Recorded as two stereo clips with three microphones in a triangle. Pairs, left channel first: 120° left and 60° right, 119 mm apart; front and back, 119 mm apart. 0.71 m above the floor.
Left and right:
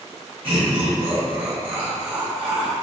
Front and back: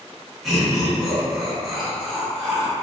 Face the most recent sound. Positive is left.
turn(degrees=-90)